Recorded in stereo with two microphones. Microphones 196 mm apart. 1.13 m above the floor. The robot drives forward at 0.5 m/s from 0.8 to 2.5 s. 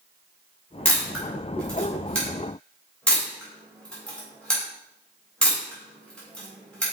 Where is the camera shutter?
5° left (ahead or behind), 3 m.